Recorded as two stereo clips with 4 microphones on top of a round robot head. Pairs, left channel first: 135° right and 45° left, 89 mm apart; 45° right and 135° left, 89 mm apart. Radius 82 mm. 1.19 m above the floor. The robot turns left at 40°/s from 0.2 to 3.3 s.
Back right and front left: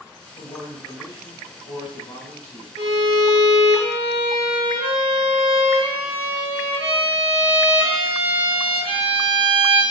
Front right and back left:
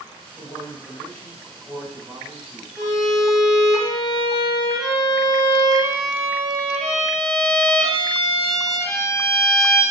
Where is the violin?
65° left, 2 m; by 9.8 s 45° left, 2 m.